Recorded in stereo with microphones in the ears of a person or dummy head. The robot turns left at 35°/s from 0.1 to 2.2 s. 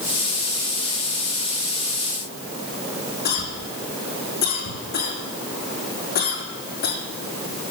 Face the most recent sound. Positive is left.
turn(degrees=50)  # may be behind; listen again after turning